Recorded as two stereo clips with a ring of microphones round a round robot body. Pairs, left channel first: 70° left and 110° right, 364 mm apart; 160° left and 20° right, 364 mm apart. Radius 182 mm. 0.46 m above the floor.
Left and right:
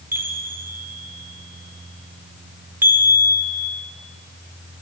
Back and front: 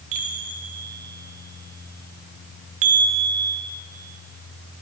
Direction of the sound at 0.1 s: 35° right.